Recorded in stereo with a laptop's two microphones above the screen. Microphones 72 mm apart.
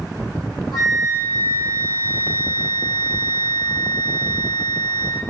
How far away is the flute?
About 0.9 m.